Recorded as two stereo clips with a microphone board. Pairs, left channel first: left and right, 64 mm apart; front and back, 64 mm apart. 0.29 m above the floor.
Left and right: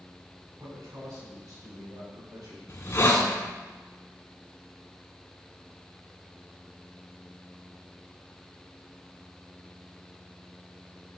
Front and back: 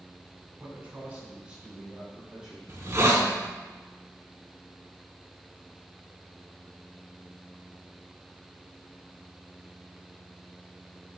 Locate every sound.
0.6 s a man speaking: 125° right, 2.5 m; by 2.6 s 100° right, 4 m
2.7 s a hiss: 135° left, 1.3 m